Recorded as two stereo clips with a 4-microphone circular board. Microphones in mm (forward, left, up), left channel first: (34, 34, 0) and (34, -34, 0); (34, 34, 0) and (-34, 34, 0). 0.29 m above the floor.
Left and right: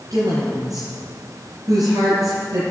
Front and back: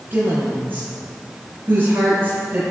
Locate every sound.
0.1 s a woman speaking: 120° right, 5 m